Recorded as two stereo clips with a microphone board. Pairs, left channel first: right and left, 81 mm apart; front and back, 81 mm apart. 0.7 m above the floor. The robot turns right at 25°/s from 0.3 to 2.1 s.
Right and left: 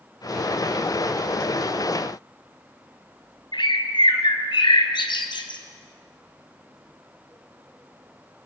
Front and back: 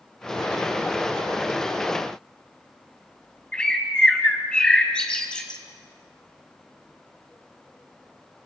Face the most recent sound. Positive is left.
turn(degrees=-80)